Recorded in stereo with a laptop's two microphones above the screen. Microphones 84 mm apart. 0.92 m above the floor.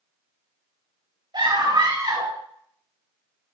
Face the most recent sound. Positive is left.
turn(degrees=-70)  # may be behind; listen again after turning